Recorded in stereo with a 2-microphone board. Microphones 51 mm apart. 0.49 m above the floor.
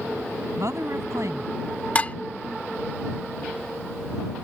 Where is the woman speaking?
75° right (ahead or behind).